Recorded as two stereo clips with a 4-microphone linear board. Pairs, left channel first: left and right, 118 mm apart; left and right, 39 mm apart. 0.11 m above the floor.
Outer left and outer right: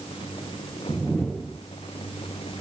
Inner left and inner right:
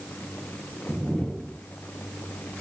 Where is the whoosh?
5° left (ahead or behind), 0.8 m.